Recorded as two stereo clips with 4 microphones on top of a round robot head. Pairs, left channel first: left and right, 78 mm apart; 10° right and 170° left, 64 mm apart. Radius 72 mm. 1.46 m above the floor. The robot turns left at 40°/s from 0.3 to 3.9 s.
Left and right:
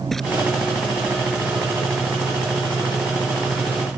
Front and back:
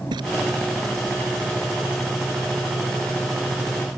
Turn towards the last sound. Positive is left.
turn(degrees=35)